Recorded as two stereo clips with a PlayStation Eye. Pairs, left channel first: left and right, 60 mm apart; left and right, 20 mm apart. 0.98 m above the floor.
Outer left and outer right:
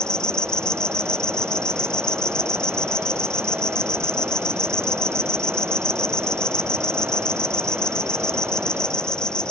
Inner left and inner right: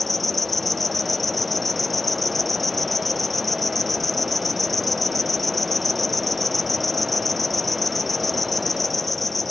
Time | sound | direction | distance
0.0 | an insect | 15° left (ahead or behind) | ?